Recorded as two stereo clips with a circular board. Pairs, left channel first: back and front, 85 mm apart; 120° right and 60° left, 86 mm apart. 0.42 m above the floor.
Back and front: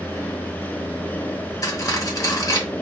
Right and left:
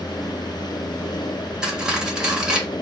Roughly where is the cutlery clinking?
Behind left.